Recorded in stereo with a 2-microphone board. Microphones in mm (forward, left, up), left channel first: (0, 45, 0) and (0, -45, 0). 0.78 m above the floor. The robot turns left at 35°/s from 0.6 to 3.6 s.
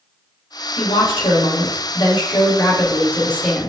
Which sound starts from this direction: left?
A woman speaking, at 0.8 s.